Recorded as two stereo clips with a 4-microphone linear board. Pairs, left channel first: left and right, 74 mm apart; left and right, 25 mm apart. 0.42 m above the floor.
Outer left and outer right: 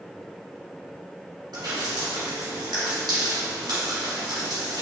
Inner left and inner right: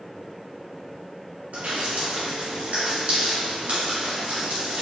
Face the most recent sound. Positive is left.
turn(degrees=-80)